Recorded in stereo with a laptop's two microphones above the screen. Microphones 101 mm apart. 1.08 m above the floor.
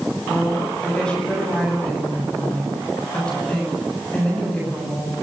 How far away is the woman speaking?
About 8.5 m.